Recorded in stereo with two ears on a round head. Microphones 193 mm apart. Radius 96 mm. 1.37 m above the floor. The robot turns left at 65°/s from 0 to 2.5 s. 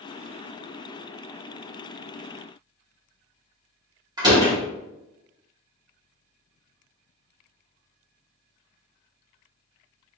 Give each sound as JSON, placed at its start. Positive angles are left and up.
{"t": 4.2, "sound": "a door slam", "side_deg": -20, "distance_m": 2.0}